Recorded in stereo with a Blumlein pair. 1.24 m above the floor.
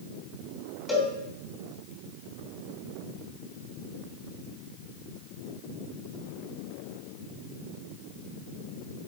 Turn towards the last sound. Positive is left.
turn(degrees=15)